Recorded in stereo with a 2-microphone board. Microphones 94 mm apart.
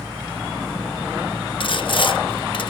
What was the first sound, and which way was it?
Sawing, 55° left (ahead or behind).